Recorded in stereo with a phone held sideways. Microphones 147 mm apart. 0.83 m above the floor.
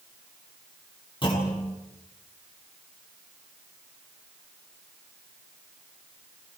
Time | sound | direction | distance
1.2 | a clunk | 35° left (ahead or behind) | 8.5 m